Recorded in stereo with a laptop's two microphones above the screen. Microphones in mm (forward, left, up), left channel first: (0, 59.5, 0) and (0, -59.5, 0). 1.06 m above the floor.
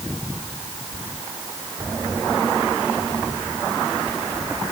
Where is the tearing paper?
I don't hear tearing paper.